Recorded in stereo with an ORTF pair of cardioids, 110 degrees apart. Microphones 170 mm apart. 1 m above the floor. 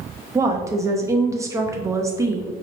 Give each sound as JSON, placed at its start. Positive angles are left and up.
{"t": 0.3, "sound": "a woman speaking", "azimuth_deg": -20, "distance_m": 0.9}